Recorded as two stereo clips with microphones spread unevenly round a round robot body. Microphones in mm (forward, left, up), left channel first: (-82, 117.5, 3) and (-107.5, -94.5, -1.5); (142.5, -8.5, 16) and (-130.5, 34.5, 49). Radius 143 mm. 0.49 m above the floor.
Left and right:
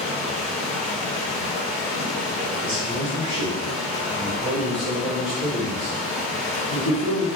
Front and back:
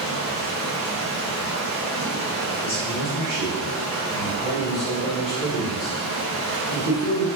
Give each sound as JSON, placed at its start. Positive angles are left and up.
{"t": 0.0, "sound": "running water", "azimuth_deg": -10, "distance_m": 1.5}
{"t": 2.6, "sound": "a man speaking", "azimuth_deg": -75, "distance_m": 1.5}